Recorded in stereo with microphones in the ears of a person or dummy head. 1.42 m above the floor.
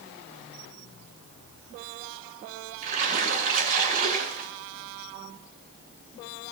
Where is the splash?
40° right (ahead or behind), 4.5 m.